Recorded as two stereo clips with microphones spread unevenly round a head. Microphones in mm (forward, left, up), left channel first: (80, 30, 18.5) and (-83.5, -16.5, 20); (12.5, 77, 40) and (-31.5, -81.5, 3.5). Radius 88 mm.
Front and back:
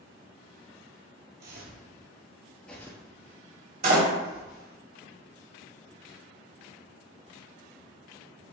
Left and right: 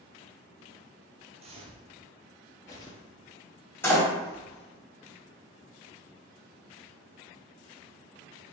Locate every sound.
1.4 s footsteps: 160° right, 1.7 m; by 4.8 s 50° left, 3.5 m
3.8 s a door slam: 150° left, 2.5 m